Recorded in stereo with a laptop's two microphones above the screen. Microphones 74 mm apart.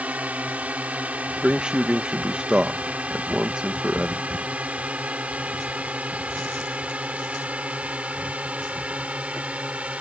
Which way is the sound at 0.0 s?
20° right (ahead or behind).